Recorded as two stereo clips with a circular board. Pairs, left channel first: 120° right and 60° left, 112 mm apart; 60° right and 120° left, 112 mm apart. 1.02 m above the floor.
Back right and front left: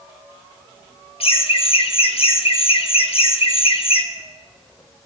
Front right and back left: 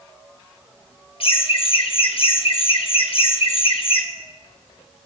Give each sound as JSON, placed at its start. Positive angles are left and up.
{"t": 1.2, "sound": "laughter", "azimuth_deg": -90, "distance_m": 1.1}